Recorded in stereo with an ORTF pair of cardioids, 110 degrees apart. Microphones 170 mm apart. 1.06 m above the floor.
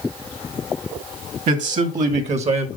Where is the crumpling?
No crumpling in this recording.